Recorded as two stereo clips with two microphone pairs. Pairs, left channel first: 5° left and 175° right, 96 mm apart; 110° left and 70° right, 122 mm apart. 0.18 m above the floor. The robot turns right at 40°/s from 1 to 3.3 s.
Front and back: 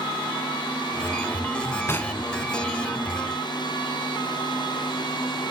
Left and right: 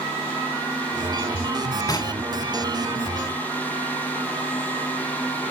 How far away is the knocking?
About 1.0 m.